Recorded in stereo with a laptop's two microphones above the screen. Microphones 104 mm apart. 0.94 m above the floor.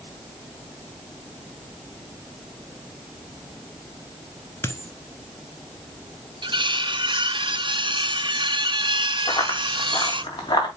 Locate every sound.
4.6 s a dropped coin: 25° left (ahead or behind), 1.0 m
6.4 s cutlery clinking: 55° right (ahead or behind), 0.6 m
9.3 s running footsteps: 55° left (ahead or behind), 3.5 m; by 10.7 s 50° left (ahead or behind), 4 m